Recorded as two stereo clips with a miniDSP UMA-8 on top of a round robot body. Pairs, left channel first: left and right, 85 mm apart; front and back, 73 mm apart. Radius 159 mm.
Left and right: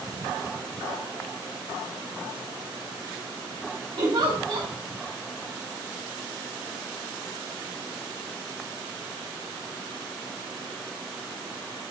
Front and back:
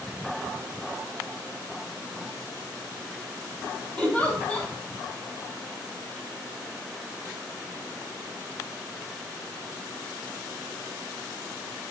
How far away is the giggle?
About 4.5 m.